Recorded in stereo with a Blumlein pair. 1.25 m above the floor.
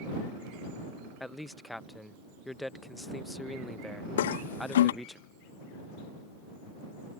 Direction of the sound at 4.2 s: 60° left.